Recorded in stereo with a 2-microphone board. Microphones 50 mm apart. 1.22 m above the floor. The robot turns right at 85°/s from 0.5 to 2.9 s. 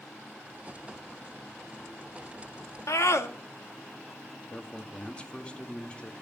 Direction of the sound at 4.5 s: 25° left (ahead or behind).